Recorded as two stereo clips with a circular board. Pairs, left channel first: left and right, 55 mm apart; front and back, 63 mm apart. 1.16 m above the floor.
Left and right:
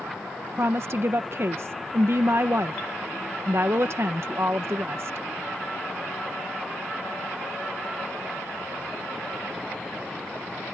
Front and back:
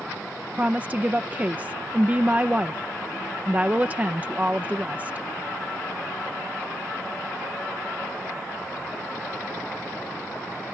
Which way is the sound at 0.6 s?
115° right.